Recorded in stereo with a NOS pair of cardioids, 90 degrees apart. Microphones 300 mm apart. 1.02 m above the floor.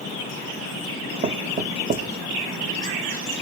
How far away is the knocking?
About 1.1 m.